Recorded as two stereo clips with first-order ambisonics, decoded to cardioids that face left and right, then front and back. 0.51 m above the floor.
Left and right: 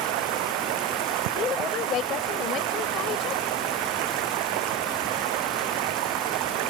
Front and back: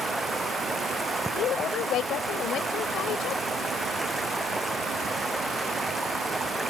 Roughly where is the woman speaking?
Ahead left.